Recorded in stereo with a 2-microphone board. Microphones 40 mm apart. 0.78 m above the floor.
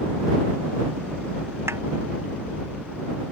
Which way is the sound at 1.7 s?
85° right.